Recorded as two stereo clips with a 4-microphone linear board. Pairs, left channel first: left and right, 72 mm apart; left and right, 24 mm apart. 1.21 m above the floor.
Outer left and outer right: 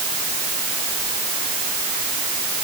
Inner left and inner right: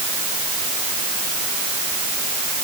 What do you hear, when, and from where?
Only background noise.